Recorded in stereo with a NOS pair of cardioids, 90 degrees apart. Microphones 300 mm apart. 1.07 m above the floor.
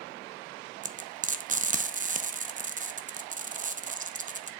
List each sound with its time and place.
0.8 s frying: 30° right, 0.7 m